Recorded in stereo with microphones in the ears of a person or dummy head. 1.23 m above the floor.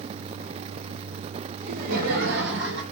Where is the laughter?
50° right (ahead or behind), 2 m; by 2.8 s 70° right (ahead or behind), 1.9 m.